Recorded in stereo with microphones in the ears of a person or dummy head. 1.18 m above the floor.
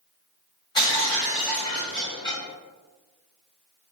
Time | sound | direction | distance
0.8 | breaking glass | 25° left (ahead or behind) | 1.0 m